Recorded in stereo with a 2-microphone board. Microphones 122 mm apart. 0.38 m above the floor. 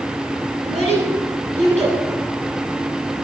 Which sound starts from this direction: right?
A child speaking, at 0.6 s.